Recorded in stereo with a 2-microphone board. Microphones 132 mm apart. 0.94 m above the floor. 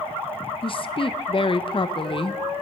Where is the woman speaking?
40° left (ahead or behind), 0.5 m.